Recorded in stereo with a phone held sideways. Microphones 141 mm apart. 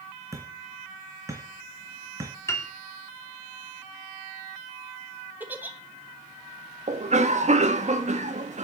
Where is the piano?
20° left (ahead or behind), 2 m.